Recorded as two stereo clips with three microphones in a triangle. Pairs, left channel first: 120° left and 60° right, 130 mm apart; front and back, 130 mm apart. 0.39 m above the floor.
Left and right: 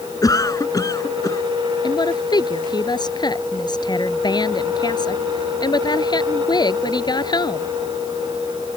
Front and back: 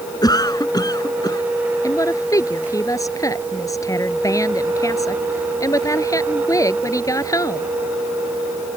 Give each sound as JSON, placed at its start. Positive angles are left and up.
{"t": 0.2, "sound": "a cough", "azimuth_deg": 60}
{"t": 1.8, "sound": "a woman speaking", "azimuth_deg": 65}